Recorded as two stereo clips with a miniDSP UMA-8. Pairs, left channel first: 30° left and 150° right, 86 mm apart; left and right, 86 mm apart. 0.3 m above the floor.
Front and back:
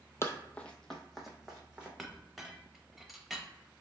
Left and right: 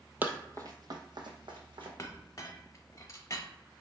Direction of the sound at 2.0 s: 120° left.